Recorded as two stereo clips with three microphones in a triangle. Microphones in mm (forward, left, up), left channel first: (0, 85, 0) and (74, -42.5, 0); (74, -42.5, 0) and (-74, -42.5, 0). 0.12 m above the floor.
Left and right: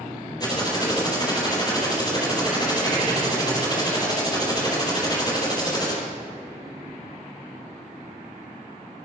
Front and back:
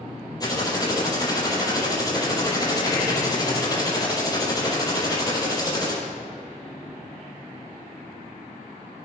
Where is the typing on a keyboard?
60° left, 4 m.